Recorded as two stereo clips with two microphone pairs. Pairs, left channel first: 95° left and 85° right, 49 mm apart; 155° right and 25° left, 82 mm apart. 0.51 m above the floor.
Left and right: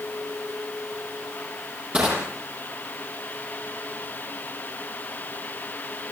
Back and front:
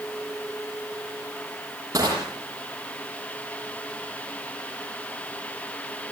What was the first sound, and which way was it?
Crushing, 20° right.